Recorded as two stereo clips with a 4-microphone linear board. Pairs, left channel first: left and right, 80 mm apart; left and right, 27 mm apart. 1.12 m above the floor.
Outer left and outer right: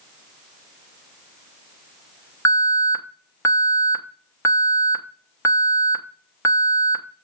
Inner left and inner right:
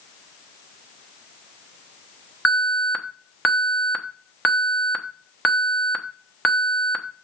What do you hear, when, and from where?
2.5 s an alarm: 35° left (ahead or behind), 1.0 m